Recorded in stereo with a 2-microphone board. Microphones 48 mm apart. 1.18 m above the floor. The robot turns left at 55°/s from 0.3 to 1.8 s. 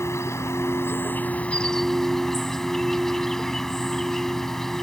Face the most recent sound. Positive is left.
turn(degrees=10)